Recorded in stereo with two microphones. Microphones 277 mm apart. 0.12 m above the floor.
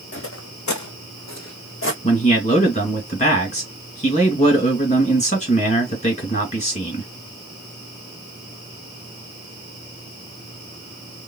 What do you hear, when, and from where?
0.1 s footsteps: 45° left (ahead or behind), 0.7 m; by 1.9 s 50° left (ahead or behind), 1.1 m
2.0 s a man speaking: 25° left (ahead or behind), 2.0 m